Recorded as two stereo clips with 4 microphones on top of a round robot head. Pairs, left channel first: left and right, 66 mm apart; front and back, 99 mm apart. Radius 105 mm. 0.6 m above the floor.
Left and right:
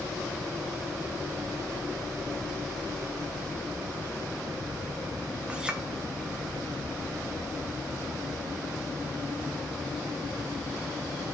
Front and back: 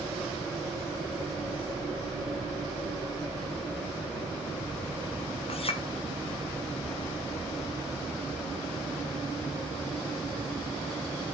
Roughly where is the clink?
Ahead.